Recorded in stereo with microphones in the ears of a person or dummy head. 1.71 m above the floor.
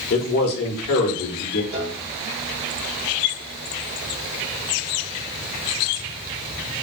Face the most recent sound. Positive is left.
turn(degrees=-55)  # may be behind; listen again after turning